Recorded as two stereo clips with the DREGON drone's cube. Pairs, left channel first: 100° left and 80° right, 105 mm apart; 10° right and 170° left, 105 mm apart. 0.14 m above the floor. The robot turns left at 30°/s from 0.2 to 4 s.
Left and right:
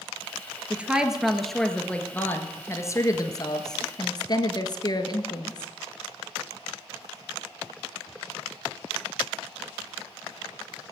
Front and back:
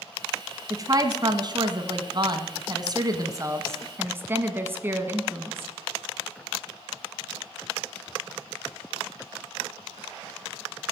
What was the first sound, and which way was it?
A woman speaking, 150° right.